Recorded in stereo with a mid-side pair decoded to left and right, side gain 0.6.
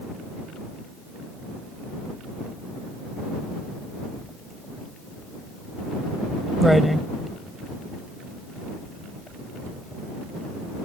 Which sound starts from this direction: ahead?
Writing, at 4.2 s.